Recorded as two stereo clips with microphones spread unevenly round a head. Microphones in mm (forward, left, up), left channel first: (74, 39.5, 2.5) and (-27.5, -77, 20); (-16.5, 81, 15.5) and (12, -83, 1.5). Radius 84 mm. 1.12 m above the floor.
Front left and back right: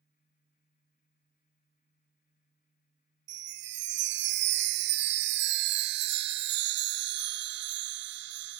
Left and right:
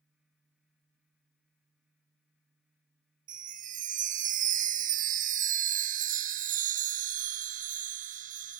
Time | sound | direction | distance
3.3 | a chime | 125° right | 0.7 m